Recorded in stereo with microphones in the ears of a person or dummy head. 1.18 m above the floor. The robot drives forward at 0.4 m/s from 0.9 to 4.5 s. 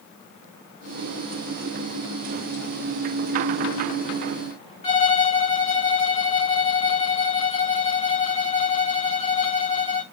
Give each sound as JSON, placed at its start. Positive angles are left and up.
{"t": 4.8, "sound": "a violin", "side_deg": 35, "distance_m": 2.0}